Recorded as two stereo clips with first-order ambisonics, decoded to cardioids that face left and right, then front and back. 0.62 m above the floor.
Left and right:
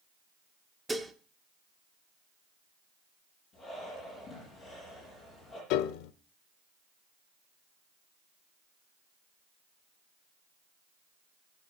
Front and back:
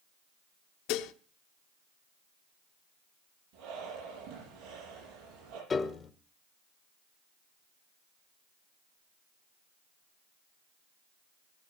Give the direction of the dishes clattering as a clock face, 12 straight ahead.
12 o'clock.